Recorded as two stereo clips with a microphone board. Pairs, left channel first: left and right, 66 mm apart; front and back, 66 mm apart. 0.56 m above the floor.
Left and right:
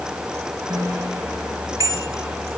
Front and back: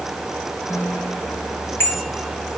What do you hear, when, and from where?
0.7 s a bicycle bell: 55° right, 7 m